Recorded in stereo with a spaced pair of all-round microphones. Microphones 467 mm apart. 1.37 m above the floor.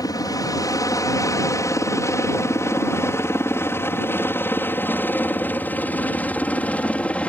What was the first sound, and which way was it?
A helicopter, 5° left (ahead or behind).